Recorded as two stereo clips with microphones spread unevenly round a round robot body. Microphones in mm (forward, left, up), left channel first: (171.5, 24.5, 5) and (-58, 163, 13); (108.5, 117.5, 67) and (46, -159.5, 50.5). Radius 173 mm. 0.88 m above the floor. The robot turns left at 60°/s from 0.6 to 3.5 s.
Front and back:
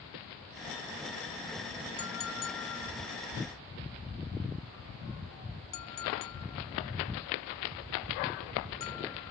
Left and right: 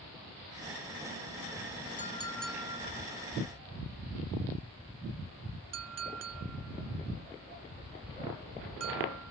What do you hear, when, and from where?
2.0 s a clink: 15° left; by 9.3 s 75° right